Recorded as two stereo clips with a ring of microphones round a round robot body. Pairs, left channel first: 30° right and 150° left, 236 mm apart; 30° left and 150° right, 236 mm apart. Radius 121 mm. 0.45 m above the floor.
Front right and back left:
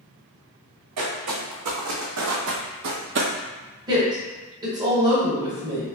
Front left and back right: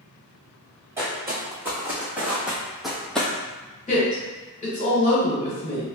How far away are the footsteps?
About 1.7 m.